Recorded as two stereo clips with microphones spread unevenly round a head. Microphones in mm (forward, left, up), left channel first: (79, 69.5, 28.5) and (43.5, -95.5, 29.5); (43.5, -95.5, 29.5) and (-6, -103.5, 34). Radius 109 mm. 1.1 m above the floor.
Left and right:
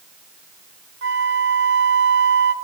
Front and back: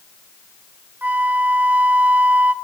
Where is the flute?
115° right, 0.6 m.